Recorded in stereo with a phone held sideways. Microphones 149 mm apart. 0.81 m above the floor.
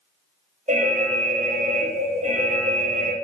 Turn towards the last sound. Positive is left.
turn(degrees=-55)  # may be behind; listen again after turning